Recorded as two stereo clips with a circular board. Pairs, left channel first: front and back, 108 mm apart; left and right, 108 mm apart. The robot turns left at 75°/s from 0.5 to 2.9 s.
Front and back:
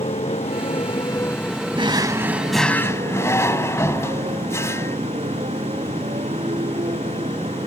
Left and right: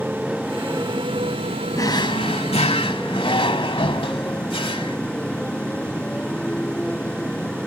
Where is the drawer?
150° left; by 5.0 s 65° left.